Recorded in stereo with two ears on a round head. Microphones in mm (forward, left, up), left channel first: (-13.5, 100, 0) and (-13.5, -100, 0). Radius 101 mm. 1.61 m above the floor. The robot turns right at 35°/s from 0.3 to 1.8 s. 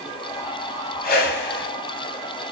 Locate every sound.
1.0 s a whoosh: 40° left (ahead or behind), 0.7 m; by 1.7 s 60° left (ahead or behind), 0.7 m